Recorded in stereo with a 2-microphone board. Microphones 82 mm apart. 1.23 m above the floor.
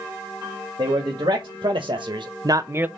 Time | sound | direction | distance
0.8 | a man speaking | 70° right (ahead or behind) | 1.8 m